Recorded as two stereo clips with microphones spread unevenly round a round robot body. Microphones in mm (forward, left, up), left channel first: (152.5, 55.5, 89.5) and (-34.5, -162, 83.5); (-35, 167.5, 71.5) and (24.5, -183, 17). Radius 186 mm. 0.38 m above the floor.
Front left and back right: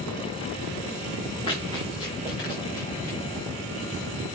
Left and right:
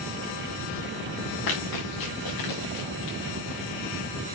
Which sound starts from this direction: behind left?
Running footsteps, at 1.5 s.